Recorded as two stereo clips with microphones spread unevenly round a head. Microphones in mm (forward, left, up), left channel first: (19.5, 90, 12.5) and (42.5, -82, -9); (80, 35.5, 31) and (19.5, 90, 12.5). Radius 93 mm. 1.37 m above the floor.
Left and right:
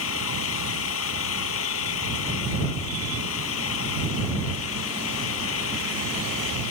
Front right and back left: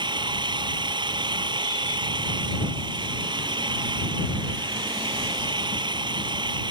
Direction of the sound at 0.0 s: 115° left.